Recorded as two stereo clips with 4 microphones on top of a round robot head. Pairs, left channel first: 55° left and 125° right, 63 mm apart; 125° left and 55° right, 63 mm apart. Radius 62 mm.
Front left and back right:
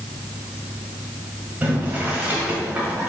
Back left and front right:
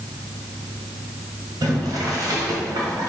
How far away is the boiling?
About 1.9 m.